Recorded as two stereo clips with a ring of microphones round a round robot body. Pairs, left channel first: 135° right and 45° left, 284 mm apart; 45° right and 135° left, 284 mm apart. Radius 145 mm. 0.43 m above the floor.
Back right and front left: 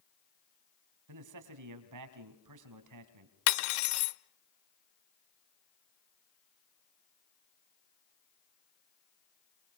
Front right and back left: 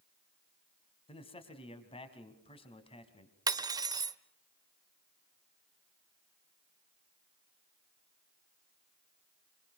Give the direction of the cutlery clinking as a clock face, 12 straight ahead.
5 o'clock.